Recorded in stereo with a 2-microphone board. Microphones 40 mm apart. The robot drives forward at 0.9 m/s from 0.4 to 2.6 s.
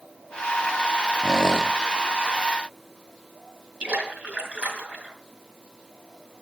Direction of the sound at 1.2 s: 5° right (ahead or behind).